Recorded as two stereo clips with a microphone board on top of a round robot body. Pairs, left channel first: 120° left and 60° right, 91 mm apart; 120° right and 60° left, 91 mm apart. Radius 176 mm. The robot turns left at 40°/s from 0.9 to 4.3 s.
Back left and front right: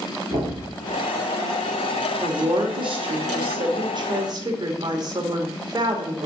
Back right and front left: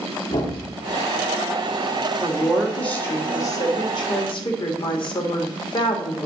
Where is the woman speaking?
20° right, 2 m; by 6.3 s 100° right, 2 m.